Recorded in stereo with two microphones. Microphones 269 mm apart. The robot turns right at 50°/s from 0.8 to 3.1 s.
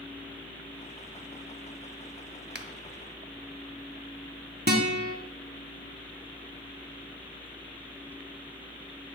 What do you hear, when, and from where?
2.5 s a finger snap: 40° right (ahead or behind), 0.9 m
4.7 s a guitar: 40° right (ahead or behind), 1.5 m